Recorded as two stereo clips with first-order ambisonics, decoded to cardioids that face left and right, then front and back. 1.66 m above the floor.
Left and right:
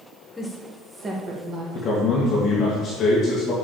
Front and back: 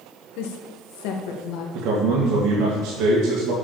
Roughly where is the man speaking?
Behind left.